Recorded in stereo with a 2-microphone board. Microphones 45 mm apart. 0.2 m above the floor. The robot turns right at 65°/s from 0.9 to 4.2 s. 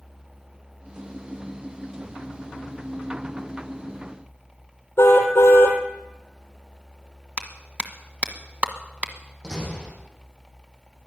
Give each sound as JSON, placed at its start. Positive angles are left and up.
{"t": 5.0, "sound": "a car horn", "side_deg": 65, "distance_m": 3.0}
{"t": 7.4, "sound": "a clap", "side_deg": -35, "distance_m": 1.3}
{"t": 9.4, "sound": "a door slam", "side_deg": -10, "distance_m": 7.0}